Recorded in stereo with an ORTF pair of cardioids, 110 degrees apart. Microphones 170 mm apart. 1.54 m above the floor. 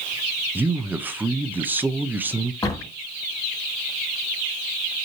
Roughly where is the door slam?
Ahead.